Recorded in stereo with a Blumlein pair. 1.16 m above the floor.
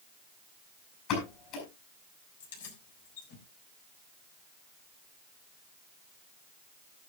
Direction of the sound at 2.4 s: 60° left.